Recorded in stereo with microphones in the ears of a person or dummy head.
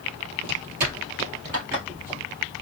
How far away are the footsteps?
About 2.0 m.